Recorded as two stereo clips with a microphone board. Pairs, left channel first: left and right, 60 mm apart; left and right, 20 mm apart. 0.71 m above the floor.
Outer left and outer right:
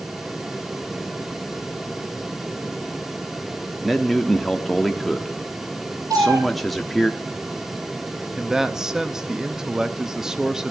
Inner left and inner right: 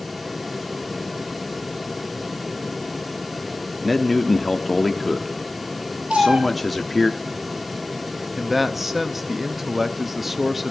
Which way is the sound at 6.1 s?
80° right.